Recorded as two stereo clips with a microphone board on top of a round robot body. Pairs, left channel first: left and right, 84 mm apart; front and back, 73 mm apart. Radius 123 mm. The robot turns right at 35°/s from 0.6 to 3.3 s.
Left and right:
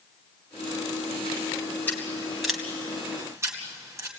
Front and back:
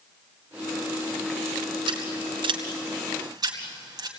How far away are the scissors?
About 3 m.